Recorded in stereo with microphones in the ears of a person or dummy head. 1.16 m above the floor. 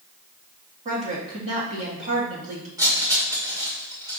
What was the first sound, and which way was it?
A woman speaking, 40° right (ahead or behind).